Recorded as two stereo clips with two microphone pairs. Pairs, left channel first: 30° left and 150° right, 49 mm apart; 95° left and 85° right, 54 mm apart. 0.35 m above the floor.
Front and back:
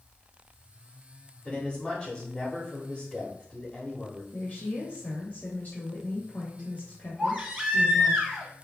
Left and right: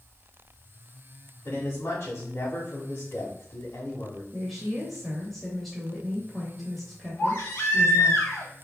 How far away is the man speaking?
About 1.2 m.